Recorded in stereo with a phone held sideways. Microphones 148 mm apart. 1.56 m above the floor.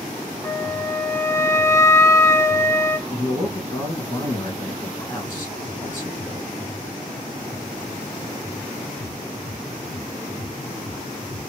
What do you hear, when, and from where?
0.4 s a flute: 20° left (ahead or behind), 0.8 m
3.1 s a man speaking: 20° left (ahead or behind), 2.5 m